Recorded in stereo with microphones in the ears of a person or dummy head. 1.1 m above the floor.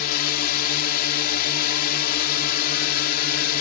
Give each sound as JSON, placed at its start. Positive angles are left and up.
{"t": 0.0, "sound": "a drone", "side_deg": 55}